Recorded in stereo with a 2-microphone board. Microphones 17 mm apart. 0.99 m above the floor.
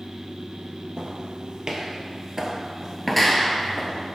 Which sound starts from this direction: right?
Footsteps, at 1.0 s.